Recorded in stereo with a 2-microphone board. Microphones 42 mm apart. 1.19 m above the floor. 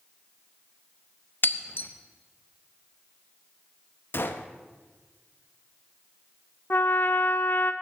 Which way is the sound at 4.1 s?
60° left (ahead or behind).